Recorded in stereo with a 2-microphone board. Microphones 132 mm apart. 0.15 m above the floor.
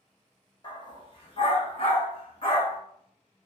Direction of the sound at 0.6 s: 35° left (ahead or behind).